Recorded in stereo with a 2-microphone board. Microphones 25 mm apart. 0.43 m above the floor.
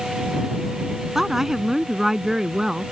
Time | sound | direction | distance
1.1 | a woman speaking | 15° right (ahead or behind) | ?